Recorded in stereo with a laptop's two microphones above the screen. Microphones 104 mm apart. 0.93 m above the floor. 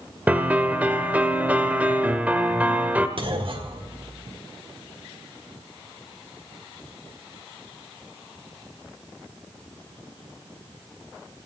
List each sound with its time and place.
0.3 s a piano: 15° right (ahead or behind), 0.9 m
3.2 s a clunk: 55° right (ahead or behind), 1.3 m